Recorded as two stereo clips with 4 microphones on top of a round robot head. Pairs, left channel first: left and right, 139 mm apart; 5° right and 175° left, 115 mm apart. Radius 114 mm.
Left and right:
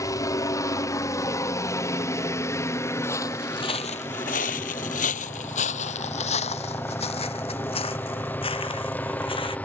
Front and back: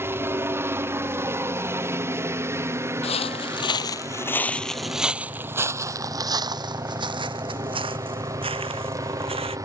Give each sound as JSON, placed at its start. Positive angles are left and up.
{"t": 0.0, "sound": "a helicopter", "azimuth_deg": 130}
{"t": 3.0, "sound": "footsteps", "azimuth_deg": 15}